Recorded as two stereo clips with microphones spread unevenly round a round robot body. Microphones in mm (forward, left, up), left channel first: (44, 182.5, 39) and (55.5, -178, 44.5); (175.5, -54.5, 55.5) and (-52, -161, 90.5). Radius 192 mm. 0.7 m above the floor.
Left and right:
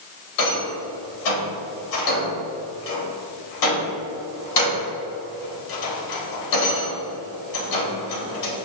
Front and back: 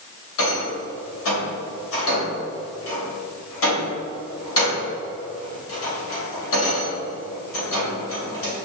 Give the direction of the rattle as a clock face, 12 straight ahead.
10 o'clock.